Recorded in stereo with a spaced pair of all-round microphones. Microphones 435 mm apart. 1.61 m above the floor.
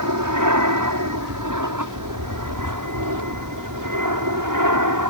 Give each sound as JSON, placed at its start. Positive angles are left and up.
{"t": 0.0, "sound": "an aircraft", "side_deg": -45}